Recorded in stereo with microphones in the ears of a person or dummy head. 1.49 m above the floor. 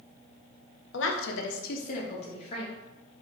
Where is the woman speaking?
55° left (ahead or behind), 0.6 m; by 2.7 s 35° left (ahead or behind), 1.2 m.